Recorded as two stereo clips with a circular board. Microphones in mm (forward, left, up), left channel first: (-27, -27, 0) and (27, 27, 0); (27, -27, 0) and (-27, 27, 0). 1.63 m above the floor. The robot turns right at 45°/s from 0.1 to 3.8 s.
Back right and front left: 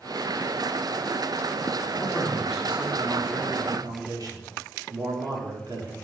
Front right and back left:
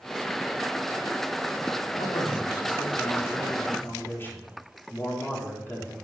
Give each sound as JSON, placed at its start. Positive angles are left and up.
{"t": 1.9, "sound": "a man speaking", "azimuth_deg": -70, "distance_m": 4.0}